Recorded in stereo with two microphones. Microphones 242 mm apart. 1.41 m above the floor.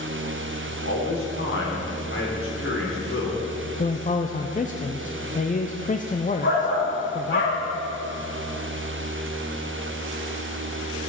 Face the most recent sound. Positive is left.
turn(degrees=50)  # may be behind; listen again after turning